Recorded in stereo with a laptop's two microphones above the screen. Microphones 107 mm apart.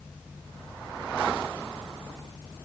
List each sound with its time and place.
Only background noise.